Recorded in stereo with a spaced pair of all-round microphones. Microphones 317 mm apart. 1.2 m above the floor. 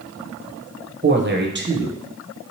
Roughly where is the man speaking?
Right.